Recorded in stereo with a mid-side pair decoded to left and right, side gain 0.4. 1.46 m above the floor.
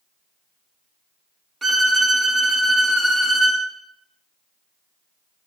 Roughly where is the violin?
Ahead right.